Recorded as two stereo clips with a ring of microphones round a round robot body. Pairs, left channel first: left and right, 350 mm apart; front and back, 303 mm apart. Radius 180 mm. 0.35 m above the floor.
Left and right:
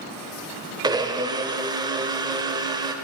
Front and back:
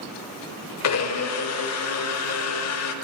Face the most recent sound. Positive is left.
turn(degrees=-15)